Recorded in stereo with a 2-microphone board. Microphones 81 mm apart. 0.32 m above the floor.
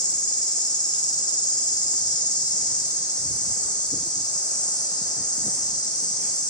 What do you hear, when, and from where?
0.0 s an insect: 60° left (ahead or behind), 1.4 m